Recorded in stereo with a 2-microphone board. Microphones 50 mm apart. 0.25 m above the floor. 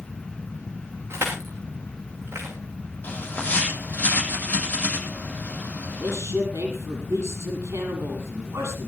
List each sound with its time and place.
1.1 s crushing: 55° right (ahead or behind), 10 m
3.0 s a bird: 35° left (ahead or behind), 8 m
6.0 s a man speaking: 70° right (ahead or behind), 8 m